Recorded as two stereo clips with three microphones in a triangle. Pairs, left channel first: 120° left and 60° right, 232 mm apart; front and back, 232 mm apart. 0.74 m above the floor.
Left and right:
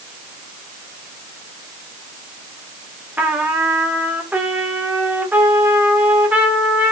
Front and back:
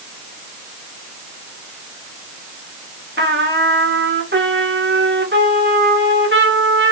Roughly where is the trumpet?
Behind right.